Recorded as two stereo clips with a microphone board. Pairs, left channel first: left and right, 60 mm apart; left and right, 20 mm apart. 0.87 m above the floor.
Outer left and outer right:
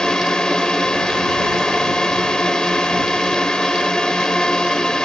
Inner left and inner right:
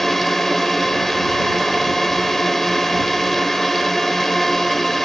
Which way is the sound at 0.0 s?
10° left (ahead or behind).